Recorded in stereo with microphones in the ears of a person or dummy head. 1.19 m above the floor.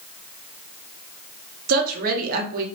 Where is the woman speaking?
45° right (ahead or behind), 0.7 m.